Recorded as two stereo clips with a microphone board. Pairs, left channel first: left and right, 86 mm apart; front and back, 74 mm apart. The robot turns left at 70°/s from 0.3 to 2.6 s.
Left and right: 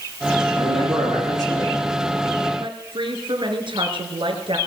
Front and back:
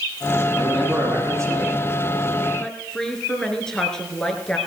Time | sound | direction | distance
0.6 | a man speaking | 80° right | 9 m
2.6 | a woman speaking | 80° right | 3 m